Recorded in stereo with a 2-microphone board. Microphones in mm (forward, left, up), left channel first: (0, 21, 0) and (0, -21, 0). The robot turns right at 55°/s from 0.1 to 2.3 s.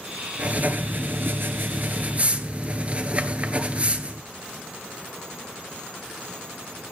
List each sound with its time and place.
0.4 s writing: 145° right, 1.4 m; by 4.3 s 40° right, 1.4 m